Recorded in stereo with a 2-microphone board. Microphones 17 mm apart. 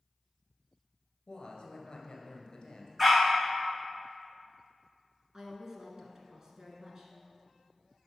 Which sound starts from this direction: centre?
A dog barking, at 3.0 s.